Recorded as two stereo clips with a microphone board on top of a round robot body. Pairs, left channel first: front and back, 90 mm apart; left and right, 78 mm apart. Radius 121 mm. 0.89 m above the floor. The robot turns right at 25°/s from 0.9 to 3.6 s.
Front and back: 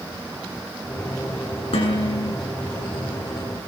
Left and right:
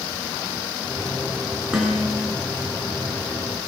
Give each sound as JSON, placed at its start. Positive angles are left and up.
{"t": 1.7, "sound": "dishes clattering", "azimuth_deg": -10, "distance_m": 8.5}